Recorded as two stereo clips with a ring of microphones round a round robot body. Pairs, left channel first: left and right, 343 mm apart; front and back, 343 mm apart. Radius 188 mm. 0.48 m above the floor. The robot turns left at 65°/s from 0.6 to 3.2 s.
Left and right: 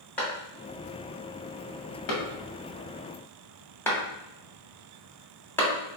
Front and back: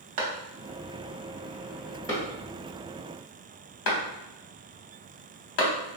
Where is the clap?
175° left, 0.9 m; by 5.7 s 5° left, 0.9 m.